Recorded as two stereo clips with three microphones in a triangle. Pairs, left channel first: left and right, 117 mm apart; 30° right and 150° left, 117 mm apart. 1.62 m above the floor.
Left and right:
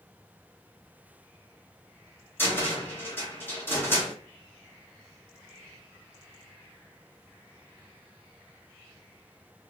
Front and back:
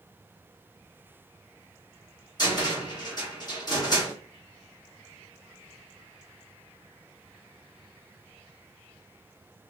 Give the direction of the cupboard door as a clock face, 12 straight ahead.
11 o'clock.